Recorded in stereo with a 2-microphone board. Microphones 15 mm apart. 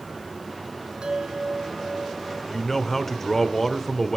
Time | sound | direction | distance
1.0 | a bell | 75° right (ahead or behind) | 2.0 m
2.5 | a man speaking | 20° left (ahead or behind) | 1.3 m